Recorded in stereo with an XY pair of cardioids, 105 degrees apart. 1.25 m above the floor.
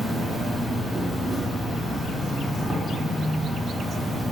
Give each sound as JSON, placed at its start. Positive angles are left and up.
{"t": 0.0, "sound": "an insect", "azimuth_deg": -5, "distance_m": 0.8}